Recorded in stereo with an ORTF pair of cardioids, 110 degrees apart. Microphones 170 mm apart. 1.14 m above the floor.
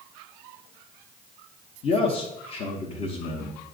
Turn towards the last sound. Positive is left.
turn(degrees=40)